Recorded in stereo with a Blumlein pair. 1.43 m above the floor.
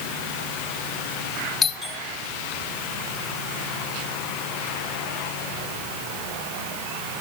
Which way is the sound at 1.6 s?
20° left.